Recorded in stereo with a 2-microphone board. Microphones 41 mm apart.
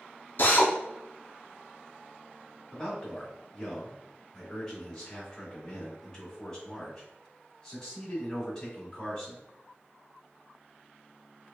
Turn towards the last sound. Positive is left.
turn(degrees=15)  # may be behind; listen again after turning